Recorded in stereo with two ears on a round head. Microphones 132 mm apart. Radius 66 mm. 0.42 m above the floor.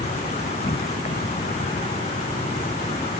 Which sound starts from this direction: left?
An insect, at 0.0 s.